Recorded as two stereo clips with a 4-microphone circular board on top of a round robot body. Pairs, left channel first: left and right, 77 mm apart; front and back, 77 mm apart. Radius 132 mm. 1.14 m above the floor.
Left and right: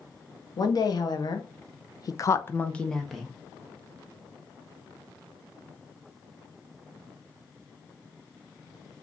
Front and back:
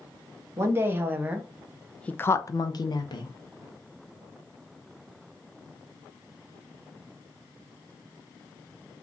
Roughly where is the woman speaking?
Behind left.